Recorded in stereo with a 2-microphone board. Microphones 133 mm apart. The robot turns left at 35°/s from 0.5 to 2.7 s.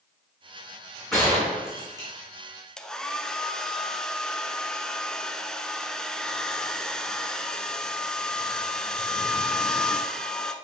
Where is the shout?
I don't hear a shout.